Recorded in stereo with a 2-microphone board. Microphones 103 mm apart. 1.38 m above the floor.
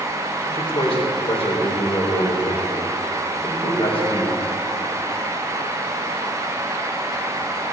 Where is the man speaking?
60° left (ahead or behind), 4 m.